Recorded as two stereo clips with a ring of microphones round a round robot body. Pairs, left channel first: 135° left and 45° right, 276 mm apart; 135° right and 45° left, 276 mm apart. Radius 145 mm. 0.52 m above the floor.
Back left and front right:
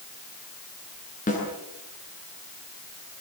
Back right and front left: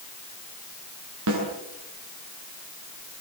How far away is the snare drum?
About 8.5 m.